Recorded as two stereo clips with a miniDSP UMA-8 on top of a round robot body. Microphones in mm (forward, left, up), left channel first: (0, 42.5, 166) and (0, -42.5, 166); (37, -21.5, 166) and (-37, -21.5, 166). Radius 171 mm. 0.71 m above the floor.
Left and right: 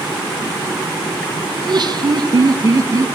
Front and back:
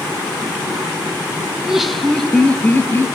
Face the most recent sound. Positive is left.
turn(degrees=-50)